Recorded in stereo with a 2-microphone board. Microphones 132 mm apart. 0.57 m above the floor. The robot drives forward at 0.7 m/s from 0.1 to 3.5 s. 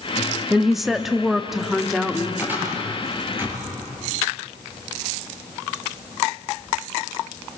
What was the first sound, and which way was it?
A woman speaking, centre (ahead or behind).